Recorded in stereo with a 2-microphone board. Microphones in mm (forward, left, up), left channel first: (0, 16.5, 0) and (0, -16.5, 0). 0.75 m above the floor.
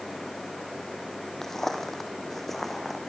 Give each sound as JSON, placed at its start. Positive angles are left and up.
{"t": 1.4, "sound": "footsteps", "side_deg": 15, "distance_m": 2.0}